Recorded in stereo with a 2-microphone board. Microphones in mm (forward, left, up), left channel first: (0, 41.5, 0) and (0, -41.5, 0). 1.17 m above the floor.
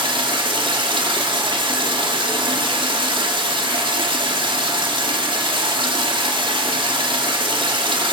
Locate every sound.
0.0 s running water: 85° right, 2 m